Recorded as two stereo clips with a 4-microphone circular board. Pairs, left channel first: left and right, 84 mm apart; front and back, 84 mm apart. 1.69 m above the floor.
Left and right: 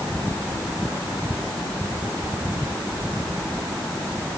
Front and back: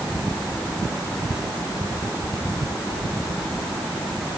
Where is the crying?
No crying in this recording.